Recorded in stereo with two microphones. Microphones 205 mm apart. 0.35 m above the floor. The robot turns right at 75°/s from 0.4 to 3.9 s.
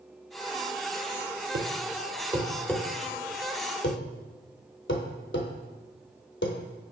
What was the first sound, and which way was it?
A thud, 65° right (ahead or behind).